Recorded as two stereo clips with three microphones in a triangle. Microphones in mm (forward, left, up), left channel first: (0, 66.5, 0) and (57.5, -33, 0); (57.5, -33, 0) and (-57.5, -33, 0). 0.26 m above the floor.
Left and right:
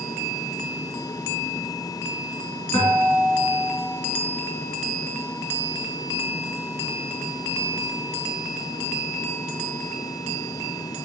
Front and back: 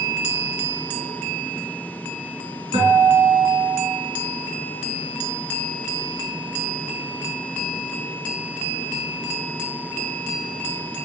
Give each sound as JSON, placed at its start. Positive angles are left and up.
{"t": 2.7, "sound": "a guitar", "azimuth_deg": 160, "distance_m": 2.0}